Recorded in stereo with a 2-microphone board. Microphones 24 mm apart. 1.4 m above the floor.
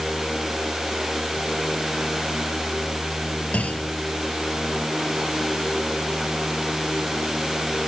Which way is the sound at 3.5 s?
85° left.